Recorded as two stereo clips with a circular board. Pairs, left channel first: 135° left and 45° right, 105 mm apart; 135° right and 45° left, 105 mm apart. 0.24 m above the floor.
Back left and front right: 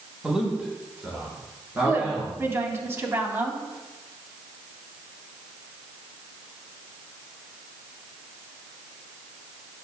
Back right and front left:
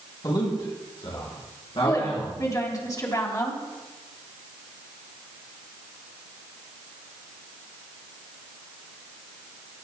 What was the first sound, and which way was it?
A man speaking, 125° right.